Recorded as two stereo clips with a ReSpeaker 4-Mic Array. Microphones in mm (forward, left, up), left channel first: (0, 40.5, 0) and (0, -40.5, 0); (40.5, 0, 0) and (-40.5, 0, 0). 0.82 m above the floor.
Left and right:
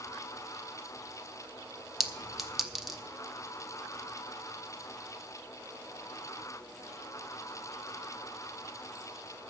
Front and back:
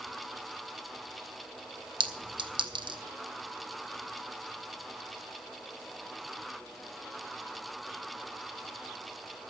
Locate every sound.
2.0 s a clink: 175° right, 0.8 m